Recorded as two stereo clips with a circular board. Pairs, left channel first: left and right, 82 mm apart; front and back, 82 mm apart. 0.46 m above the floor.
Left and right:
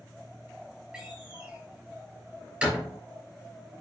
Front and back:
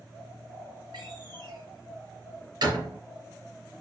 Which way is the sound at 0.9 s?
165° right.